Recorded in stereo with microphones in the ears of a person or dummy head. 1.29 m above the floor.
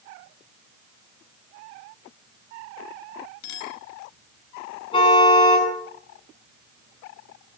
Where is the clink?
75° left (ahead or behind), 5.5 m.